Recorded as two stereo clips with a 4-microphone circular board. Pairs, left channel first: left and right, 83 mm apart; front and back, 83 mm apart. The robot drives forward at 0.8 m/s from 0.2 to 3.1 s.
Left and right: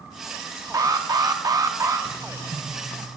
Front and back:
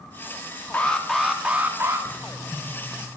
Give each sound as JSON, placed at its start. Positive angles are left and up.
{"t": 0.7, "sound": "an alarm", "azimuth_deg": -65, "distance_m": 1.1}
{"t": 2.1, "sound": "writing", "azimuth_deg": -75, "distance_m": 2.5}